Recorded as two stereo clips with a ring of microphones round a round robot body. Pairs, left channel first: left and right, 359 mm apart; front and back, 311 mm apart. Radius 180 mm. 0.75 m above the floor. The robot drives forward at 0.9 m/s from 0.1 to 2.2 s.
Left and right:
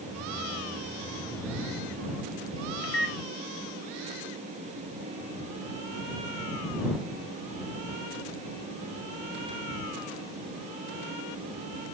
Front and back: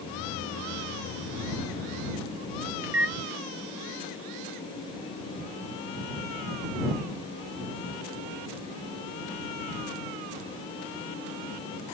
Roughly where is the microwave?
Behind left.